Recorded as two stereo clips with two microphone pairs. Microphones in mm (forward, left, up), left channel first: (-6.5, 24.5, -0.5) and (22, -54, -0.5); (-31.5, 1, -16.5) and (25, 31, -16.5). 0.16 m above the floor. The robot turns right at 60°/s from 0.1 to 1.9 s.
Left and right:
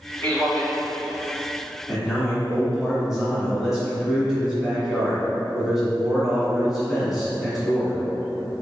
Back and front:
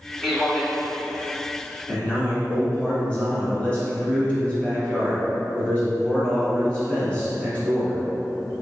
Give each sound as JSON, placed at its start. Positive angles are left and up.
{"t": 0.2, "sound": "a man speaking", "azimuth_deg": 115, "distance_m": 1.2}
{"t": 1.9, "sound": "a man speaking", "azimuth_deg": -140, "distance_m": 1.6}